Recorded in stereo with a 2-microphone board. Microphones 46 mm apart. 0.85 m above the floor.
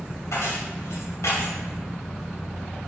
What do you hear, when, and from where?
0.3 s keys jangling: 90° left, 2.5 m